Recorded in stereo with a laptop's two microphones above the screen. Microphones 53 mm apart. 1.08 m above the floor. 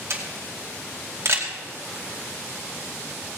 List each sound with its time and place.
0.1 s a camera shutter: 50° right (ahead or behind), 2.5 m